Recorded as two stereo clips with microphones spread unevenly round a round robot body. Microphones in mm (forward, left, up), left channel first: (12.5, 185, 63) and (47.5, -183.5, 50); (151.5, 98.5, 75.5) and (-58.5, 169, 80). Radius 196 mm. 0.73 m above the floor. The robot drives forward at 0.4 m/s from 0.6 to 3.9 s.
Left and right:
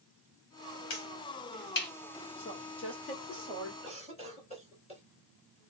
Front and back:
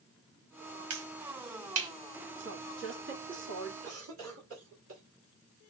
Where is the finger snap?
155° left, 2 m.